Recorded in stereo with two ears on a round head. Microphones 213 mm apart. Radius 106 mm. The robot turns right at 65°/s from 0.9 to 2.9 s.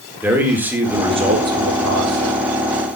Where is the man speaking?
170° right, 4 m; by 2.4 s 75° right, 4 m.